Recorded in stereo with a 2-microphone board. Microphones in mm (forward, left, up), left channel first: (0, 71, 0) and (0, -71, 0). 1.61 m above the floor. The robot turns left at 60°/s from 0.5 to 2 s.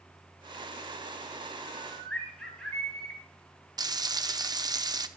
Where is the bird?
15° right (ahead or behind), 2.5 m; by 3.2 s 5° left (ahead or behind), 2.5 m.